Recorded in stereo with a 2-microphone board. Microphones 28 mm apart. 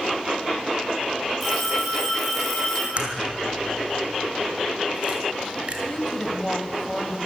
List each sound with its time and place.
1.4 s a phone ringing: 5° left (ahead or behind), 9.5 m
3.0 s a crack: 40° right (ahead or behind), 4 m
5.9 s a woman speaking: 25° left (ahead or behind), 2.5 m